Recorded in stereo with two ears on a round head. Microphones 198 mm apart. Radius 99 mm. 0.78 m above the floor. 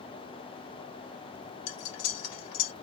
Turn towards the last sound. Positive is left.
turn(degrees=80)